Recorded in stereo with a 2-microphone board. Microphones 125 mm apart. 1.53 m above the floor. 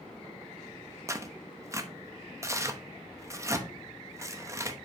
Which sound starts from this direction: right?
Tearing paper, at 1.1 s.